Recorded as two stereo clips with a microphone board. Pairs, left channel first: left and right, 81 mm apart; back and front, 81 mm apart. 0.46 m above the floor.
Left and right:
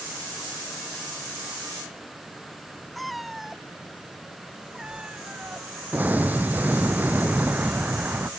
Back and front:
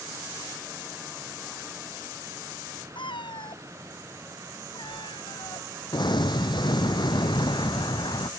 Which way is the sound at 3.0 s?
Straight behind.